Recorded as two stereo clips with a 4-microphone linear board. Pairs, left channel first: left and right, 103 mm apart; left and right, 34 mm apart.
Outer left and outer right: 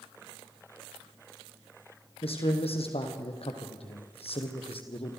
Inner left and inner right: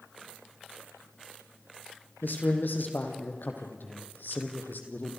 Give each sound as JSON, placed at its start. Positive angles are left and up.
{"t": 2.2, "sound": "a man speaking", "side_deg": 70, "distance_m": 4.0}